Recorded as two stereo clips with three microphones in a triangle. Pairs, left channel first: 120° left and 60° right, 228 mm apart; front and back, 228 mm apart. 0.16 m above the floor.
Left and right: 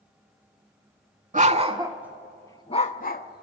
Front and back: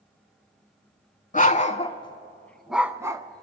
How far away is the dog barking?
About 0.7 m.